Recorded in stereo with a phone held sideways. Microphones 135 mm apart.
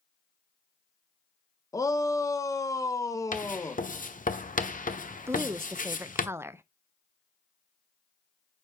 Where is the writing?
75° left (ahead or behind), 1.0 m.